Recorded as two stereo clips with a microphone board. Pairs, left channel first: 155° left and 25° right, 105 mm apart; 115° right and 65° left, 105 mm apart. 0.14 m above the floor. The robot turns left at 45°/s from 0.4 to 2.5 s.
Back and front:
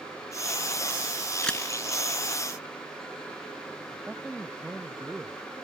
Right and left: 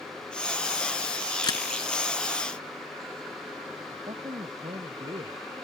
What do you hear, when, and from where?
1.4 s a camera shutter: 125° right; by 1.6 s 135° right
3.9 s a man speaking: 55° left